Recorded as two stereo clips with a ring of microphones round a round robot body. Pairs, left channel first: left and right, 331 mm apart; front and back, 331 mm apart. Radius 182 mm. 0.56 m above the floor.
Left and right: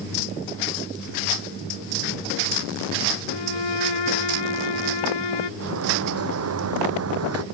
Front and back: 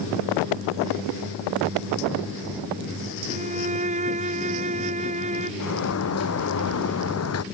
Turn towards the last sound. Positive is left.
turn(degrees=-45)